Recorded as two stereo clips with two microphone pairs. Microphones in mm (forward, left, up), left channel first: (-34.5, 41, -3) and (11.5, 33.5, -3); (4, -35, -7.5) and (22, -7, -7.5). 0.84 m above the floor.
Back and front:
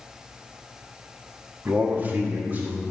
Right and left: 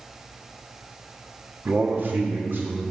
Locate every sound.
1.6 s a man speaking: 35° left, 1.3 m; by 2.8 s 40° left, 3 m